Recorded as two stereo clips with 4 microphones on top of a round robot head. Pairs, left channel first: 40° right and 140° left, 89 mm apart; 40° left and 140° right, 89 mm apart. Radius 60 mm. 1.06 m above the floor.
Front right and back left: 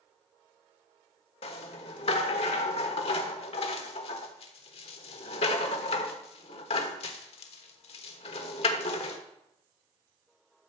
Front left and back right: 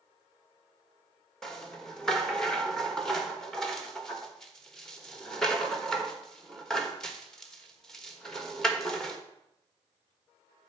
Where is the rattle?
45° right, 1.2 m.